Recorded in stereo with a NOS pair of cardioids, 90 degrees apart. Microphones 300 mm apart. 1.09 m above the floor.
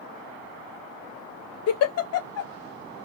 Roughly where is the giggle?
Ahead left.